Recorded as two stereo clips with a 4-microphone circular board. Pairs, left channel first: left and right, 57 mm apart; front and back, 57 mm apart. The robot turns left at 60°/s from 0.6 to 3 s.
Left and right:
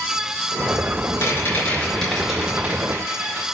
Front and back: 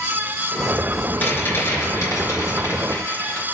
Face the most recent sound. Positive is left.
turn(degrees=-55)